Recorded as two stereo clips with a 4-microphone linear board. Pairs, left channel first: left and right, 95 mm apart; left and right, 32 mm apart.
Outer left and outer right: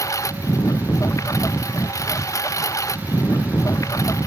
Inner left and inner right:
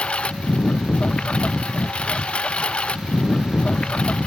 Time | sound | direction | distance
0.0 | a lawn mower | 35° left (ahead or behind) | ?